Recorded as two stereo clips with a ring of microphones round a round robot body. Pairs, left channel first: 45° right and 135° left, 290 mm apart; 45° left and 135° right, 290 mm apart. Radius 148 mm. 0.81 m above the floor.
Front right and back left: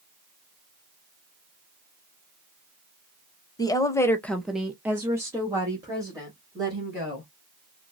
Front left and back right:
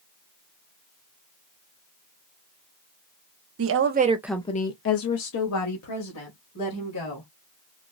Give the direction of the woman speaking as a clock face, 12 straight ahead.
4 o'clock.